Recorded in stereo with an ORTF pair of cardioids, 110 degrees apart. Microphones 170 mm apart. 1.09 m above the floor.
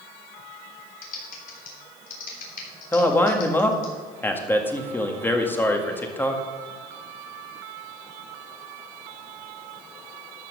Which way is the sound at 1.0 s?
55° left.